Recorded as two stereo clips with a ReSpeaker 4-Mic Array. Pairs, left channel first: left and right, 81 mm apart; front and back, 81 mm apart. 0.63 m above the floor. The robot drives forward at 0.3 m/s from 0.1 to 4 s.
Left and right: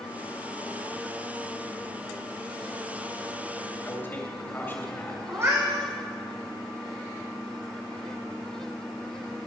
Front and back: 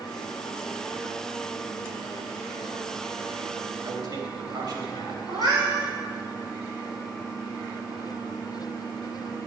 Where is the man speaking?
150° left, 3 m.